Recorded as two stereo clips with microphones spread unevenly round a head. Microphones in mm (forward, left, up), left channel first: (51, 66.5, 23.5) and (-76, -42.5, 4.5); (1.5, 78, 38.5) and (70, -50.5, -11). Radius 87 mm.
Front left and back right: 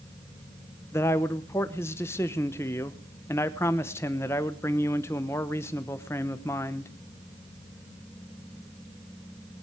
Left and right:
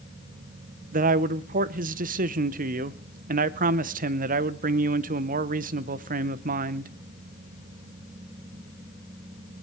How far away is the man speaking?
About 0.8 m.